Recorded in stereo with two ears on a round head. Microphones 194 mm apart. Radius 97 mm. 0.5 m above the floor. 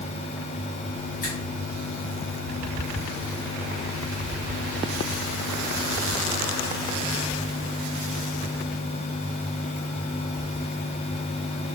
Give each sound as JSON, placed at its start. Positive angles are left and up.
{"t": 1.2, "sound": "a finger snap", "side_deg": 40, "distance_m": 3.5}